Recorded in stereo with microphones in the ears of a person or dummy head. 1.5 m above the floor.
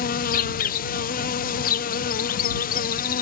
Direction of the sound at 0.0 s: 45° left (ahead or behind).